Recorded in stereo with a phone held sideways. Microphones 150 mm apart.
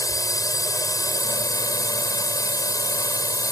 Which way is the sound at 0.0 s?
25° left (ahead or behind).